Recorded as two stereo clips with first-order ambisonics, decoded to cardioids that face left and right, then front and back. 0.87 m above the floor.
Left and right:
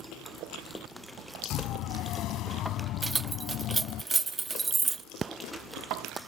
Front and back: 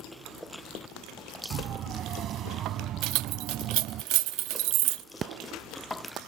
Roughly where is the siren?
Behind left.